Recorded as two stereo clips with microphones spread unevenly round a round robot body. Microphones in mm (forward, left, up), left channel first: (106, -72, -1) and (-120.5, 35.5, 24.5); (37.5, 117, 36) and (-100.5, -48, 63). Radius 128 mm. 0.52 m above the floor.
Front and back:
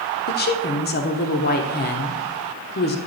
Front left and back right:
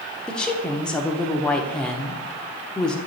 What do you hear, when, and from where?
0.3 s a woman speaking: 25° right, 0.9 m